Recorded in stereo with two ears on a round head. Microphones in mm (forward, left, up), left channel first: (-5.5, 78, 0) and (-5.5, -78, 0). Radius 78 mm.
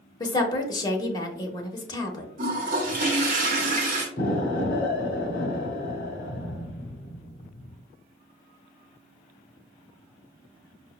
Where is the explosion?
50° left (ahead or behind), 0.6 m.